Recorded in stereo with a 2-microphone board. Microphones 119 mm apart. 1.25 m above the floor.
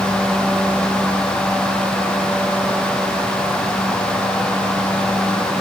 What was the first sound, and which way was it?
Only background noise.